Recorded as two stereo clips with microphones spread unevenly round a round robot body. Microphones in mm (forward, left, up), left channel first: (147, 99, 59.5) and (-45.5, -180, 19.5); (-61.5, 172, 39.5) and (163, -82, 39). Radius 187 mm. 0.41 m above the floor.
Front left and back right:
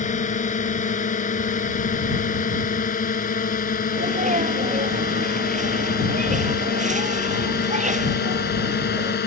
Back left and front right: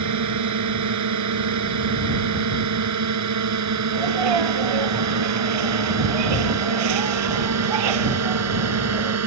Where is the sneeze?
55° right.